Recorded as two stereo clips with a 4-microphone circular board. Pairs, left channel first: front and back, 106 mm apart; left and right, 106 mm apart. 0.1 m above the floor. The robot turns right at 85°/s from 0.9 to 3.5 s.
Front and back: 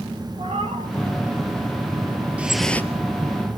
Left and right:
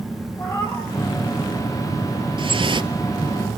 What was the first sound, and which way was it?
A cat meowing, 155° left.